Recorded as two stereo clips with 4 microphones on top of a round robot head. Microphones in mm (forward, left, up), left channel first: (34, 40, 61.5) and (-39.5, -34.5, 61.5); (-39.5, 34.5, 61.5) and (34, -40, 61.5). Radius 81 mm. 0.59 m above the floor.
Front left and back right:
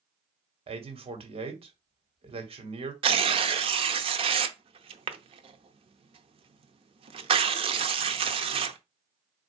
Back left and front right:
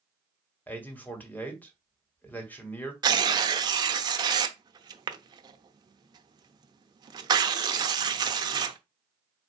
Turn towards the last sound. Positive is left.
turn(degrees=-100)